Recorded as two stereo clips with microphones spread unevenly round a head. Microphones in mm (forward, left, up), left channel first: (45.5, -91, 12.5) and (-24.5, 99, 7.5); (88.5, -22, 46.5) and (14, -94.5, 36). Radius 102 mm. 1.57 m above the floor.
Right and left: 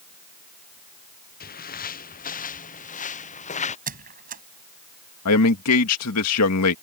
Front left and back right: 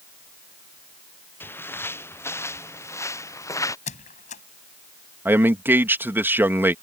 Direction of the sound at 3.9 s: 60° left.